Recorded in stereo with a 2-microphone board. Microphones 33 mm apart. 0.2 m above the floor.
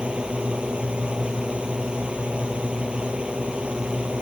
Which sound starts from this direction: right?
A drone, at 0.0 s.